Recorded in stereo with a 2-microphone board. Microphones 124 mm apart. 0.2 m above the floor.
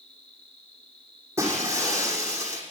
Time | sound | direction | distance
0.0 | an insect | 10° left (ahead or behind) | 5.5 m
1.4 | breaking glass | 20° right (ahead or behind) | 6 m